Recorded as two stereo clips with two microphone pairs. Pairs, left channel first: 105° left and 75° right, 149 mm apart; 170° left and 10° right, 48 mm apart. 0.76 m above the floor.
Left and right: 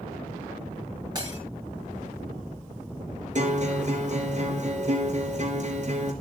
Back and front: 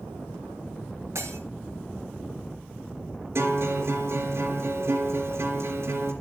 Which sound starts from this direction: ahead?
Breaking glass, at 1.1 s.